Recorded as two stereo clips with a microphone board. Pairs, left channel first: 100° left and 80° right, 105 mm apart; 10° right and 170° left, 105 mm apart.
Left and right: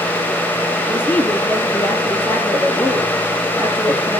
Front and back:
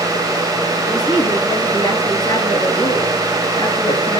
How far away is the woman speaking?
About 3.5 m.